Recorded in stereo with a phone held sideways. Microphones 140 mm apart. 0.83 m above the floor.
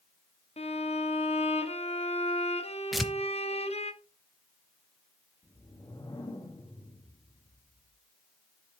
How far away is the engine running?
No engine running in this recording.